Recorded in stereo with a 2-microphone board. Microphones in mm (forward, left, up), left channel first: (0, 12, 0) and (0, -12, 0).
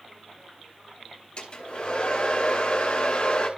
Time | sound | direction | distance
1.4 | a hair dryer | 50° left (ahead or behind) | 4 m